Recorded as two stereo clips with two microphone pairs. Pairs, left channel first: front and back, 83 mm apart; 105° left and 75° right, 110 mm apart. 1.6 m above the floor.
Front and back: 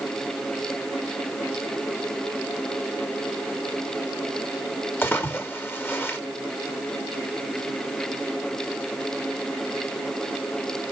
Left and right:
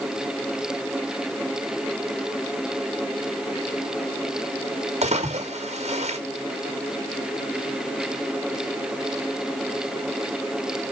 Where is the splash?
65° right, 2.0 m.